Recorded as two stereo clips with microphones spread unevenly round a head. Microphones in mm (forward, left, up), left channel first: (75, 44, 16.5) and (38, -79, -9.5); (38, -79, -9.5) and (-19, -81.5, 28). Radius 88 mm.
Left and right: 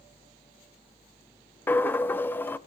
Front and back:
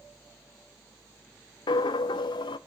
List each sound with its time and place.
1.7 s a dropped coin: 10° left, 0.6 m